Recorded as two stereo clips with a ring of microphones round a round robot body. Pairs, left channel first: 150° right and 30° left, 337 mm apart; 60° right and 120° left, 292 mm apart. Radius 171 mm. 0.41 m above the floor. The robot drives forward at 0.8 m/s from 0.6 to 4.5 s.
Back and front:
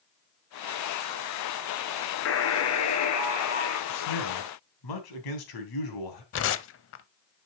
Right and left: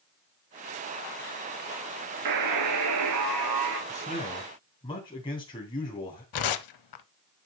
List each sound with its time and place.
2.2 s a buzzer: 155° left, 1.1 m; by 3.8 s 170° left, 2.5 m
3.9 s a man speaking: 130° right, 3 m; by 6.2 s 135° right, 3 m
6.3 s tearing paper: 95° right, 0.6 m